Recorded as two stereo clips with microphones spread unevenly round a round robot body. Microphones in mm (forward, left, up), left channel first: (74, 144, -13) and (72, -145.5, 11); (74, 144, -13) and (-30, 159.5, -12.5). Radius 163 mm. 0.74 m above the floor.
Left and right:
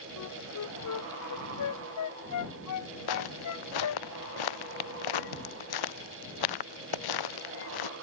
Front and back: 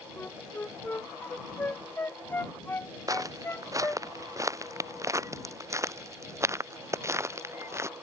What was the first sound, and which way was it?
A flute, 60° left.